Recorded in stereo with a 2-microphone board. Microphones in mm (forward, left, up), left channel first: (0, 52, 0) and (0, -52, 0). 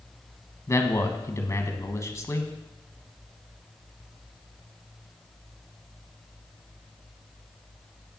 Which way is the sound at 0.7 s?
30° left (ahead or behind).